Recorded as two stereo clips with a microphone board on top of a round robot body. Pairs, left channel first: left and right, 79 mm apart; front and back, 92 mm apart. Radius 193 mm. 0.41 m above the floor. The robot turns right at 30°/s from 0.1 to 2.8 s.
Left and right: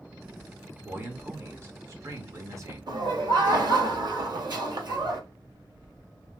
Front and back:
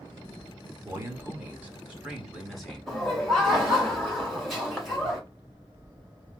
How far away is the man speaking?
About 1.5 m.